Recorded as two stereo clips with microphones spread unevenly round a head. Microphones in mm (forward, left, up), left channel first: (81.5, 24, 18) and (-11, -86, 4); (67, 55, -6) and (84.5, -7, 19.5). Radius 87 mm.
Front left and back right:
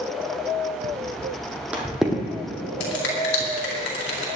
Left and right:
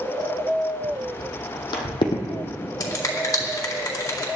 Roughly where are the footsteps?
Behind.